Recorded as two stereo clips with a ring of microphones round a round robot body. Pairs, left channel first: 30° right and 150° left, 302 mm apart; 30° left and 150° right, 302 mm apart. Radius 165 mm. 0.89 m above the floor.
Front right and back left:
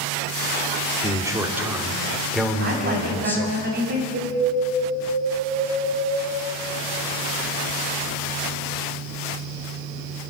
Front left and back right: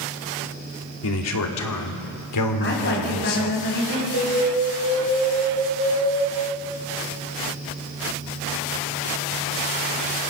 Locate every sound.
1.0 s a man speaking: 70° left, 2.5 m; by 3.6 s 55° left, 3.5 m
2.6 s a woman speaking: 90° left, 6 m
4.1 s an alarm: 155° right, 4.5 m